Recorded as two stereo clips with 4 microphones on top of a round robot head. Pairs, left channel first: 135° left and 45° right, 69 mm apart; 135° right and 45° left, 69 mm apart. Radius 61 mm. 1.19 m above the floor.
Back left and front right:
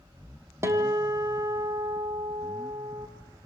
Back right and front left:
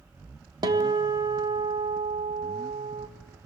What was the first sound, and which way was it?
A guitar, 15° left.